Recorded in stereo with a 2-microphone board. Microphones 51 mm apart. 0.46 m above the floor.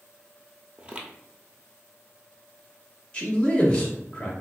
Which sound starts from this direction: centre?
A man speaking, at 3.1 s.